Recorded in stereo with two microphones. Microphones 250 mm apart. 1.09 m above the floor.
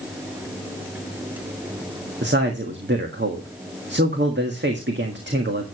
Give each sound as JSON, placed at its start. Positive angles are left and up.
{"t": 2.2, "sound": "a man speaking", "side_deg": -45, "distance_m": 1.6}